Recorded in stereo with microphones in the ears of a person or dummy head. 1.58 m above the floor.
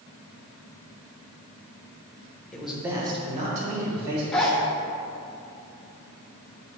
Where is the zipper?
Centre (ahead or behind), 1.1 m.